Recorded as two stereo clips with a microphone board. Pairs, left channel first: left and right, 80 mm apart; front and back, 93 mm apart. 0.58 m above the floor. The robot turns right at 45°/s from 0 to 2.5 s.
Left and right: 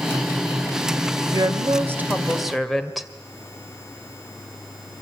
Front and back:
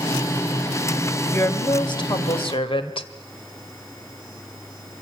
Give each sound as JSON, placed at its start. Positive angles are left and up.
{"t": 1.3, "sound": "a woman speaking", "azimuth_deg": -55, "distance_m": 2.0}